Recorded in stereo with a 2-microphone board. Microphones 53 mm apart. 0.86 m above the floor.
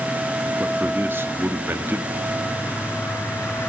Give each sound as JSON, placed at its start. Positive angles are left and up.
{"t": 0.6, "sound": "a man speaking", "side_deg": -45, "distance_m": 1.6}
{"t": 2.1, "sound": "a bird", "side_deg": 60, "distance_m": 1.8}